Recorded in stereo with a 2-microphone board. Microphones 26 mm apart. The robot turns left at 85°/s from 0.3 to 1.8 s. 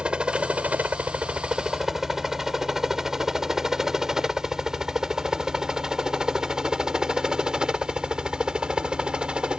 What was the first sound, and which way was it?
A helicopter, 40° right (ahead or behind).